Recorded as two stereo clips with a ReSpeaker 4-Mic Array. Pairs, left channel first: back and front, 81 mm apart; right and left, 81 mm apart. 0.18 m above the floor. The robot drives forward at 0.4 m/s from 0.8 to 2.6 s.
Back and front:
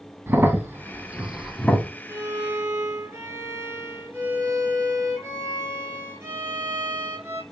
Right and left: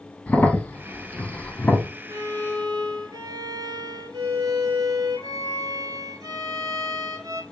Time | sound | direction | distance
0.3 | a crack | 35° right | 0.6 m
2.1 | a violin | 50° left | 1.2 m